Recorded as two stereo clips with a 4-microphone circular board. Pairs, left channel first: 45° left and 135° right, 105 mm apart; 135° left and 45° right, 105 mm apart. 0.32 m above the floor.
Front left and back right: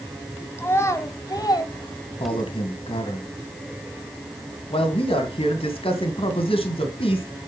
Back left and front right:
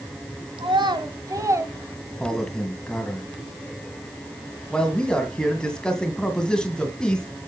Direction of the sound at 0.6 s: 20° right.